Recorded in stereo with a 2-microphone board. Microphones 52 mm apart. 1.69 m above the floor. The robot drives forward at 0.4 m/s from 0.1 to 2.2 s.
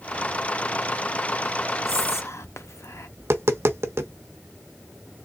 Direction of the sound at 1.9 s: 60° left (ahead or behind).